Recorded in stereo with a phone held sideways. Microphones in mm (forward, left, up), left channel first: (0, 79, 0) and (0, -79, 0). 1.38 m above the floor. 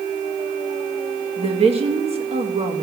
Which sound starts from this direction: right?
A woman speaking, at 1.4 s.